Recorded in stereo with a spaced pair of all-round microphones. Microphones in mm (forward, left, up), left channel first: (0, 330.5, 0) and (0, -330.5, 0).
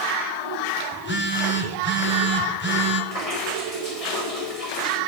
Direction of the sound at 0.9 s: 15° left (ahead or behind).